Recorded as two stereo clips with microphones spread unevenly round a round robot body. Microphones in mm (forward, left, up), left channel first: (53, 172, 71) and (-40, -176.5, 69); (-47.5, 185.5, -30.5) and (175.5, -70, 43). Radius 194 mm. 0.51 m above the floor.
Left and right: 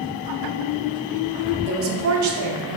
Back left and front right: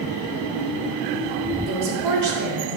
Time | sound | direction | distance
1.7 | a woman speaking | 70° right | 1.0 m